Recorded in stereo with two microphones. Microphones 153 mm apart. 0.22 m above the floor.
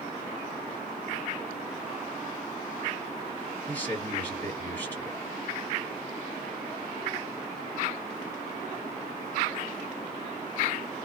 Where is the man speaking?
10° left (ahead or behind), 1.8 m.